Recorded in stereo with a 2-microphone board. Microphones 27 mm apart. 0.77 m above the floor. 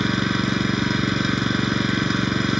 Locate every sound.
0.0 s an engine running: 10° right (ahead or behind)